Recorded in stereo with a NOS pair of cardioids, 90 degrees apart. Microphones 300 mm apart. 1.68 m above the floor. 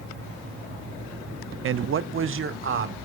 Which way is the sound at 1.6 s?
45° right.